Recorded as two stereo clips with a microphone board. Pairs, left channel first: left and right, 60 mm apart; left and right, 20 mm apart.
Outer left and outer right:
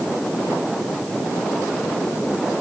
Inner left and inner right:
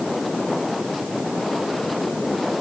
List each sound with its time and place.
Only background noise.